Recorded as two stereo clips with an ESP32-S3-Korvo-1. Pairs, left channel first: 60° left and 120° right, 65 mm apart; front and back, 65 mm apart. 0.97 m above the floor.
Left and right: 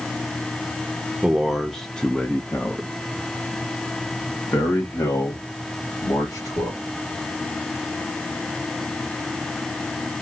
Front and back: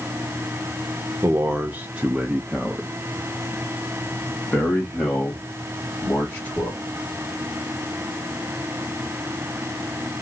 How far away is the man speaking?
About 1.0 m.